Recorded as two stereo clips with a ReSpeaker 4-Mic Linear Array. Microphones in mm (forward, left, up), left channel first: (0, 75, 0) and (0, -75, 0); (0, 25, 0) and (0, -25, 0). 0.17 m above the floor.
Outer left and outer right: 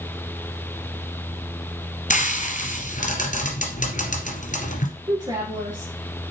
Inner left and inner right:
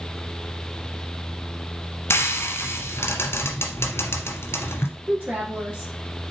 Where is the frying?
60° left (ahead or behind), 1.7 m.